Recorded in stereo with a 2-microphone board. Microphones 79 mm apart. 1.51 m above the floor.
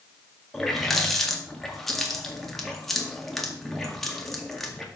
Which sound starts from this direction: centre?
A running tap, at 0.5 s.